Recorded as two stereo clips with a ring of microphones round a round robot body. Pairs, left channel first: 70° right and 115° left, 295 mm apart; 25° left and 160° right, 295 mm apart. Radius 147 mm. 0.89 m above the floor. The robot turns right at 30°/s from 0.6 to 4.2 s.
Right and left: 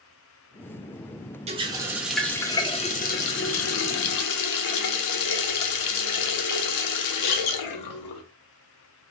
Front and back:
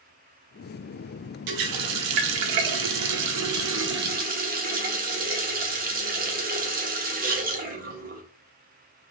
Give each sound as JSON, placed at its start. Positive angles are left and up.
{"t": 1.5, "sound": "a running tap", "azimuth_deg": 180, "distance_m": 0.6}